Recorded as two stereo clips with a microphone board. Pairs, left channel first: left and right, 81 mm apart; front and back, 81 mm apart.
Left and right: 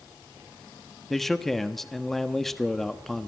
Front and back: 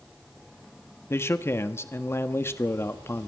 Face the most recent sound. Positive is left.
turn(degrees=5)